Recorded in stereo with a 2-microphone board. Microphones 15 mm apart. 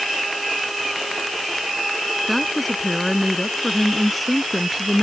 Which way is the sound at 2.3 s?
5° left (ahead or behind).